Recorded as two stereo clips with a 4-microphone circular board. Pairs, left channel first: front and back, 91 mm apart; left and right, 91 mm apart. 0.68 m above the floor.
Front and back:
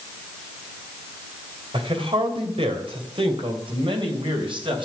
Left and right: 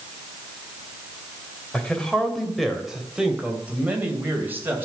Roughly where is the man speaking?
Behind.